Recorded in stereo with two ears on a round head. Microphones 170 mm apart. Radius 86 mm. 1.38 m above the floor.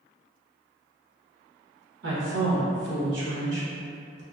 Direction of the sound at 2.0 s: 70° right (ahead or behind).